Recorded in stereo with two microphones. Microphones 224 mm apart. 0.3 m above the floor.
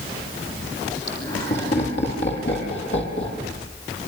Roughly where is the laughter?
Left.